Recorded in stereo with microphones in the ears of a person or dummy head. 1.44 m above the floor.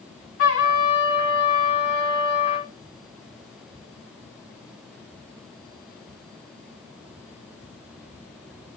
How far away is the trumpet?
About 2 m.